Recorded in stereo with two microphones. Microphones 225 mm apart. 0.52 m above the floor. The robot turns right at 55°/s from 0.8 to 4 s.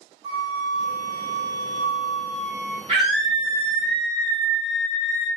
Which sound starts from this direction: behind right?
A flute, at 0.2 s.